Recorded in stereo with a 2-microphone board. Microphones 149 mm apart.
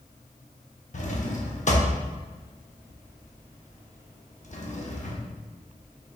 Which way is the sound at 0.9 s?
55° left (ahead or behind).